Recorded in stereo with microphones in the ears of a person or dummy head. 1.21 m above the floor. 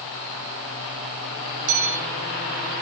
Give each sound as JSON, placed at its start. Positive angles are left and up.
{"t": 1.7, "sound": "a bell", "side_deg": -80, "distance_m": 4.0}